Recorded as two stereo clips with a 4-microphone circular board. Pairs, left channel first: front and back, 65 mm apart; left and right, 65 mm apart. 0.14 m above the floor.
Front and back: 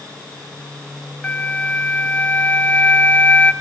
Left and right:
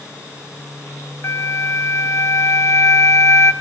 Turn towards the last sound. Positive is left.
turn(degrees=60)